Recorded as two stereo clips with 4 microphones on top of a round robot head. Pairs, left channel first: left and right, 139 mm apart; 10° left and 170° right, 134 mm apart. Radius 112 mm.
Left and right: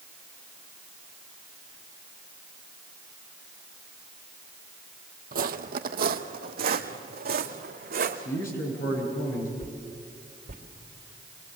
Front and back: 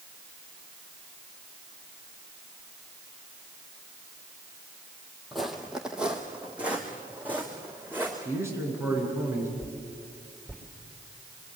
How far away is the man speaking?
About 8.5 m.